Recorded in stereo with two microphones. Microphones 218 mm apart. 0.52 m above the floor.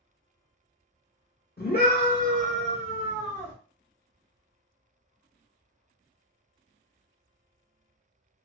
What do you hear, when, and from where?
1.6 s a scream: 45° left (ahead or behind), 1.2 m; by 3.5 s 10° left (ahead or behind), 1.4 m